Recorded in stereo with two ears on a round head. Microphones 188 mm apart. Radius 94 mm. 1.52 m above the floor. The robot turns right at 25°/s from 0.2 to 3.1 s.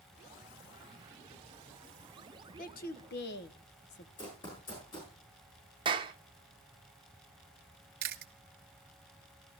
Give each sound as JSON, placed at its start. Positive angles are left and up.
{"t": 2.6, "sound": "a woman speaking", "side_deg": 40, "distance_m": 1.3}
{"t": 4.2, "sound": "running footsteps", "side_deg": 20, "distance_m": 7.0}
{"t": 5.8, "sound": "a clap", "side_deg": -25, "distance_m": 1.1}
{"t": 8.0, "sound": "chewing", "side_deg": -50, "distance_m": 1.6}